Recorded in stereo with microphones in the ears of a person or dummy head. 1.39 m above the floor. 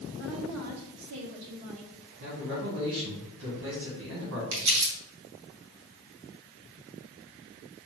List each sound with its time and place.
0.2 s a woman speaking: 65° right (ahead or behind), 1.6 m; by 1.9 s 30° right (ahead or behind), 1.0 m
2.2 s a man speaking: 65° right (ahead or behind), 1.9 m
4.5 s crumpling: 65° right (ahead or behind), 1.3 m